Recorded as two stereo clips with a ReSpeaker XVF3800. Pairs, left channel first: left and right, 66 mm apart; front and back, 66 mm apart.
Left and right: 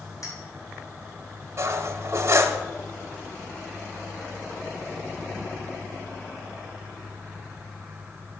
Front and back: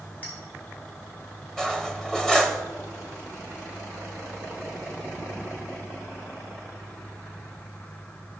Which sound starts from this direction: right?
Cutlery clinking, at 1.6 s.